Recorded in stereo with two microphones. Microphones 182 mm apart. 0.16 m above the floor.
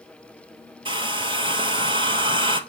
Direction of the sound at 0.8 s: 30° right (ahead or behind).